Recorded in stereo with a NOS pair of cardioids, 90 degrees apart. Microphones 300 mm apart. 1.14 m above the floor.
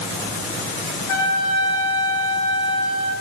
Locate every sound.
1.1 s a trumpet: 65° left, 4.5 m